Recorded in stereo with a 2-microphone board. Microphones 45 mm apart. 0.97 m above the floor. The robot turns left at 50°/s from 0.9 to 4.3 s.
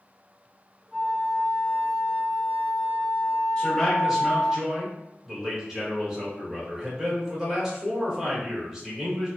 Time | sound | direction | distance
0.9 | a flute | 155° right | 0.8 m
3.6 | a man speaking | 25° left | 1.1 m